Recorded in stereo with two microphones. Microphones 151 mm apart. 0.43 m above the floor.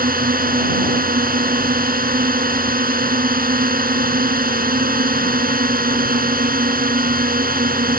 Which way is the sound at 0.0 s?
70° right (ahead or behind).